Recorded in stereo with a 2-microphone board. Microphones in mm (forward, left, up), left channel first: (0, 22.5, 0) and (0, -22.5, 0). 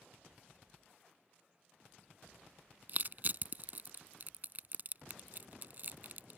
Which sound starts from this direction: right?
Crushing, at 2.9 s.